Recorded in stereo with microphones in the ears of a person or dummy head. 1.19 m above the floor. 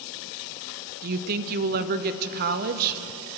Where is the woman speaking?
45° right (ahead or behind), 0.6 m.